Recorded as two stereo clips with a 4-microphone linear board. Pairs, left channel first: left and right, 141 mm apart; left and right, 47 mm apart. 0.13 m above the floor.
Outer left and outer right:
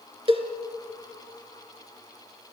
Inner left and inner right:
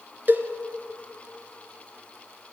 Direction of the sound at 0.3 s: 45° right (ahead or behind).